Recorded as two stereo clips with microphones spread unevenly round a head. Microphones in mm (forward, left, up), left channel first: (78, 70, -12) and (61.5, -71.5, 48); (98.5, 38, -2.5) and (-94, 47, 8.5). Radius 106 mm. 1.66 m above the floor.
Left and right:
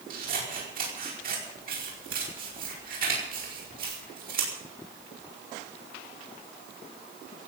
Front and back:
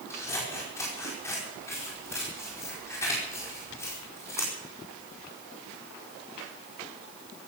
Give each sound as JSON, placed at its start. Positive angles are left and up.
{"t": 0.1, "sound": "scissors", "azimuth_deg": -80, "distance_m": 5.0}